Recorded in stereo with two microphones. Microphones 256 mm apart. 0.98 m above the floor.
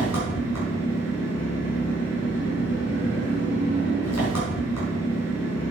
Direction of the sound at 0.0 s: 85° left.